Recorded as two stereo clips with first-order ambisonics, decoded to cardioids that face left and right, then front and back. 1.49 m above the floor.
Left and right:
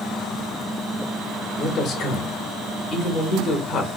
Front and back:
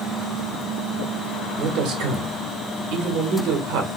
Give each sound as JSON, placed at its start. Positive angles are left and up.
{"t": 1.6, "sound": "a man speaking", "azimuth_deg": 145, "distance_m": 1.0}